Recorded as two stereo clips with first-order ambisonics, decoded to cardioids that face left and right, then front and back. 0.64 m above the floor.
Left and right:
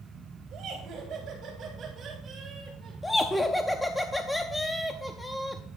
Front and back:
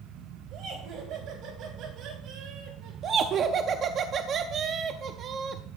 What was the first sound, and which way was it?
Laughter, 145° right.